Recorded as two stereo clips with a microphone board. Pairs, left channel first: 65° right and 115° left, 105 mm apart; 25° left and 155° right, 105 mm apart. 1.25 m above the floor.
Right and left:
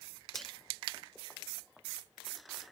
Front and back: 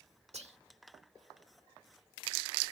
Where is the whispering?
155° right.